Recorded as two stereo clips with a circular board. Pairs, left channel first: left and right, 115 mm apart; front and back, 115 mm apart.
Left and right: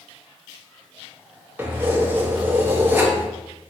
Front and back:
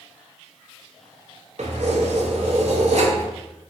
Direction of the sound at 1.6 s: 160° right.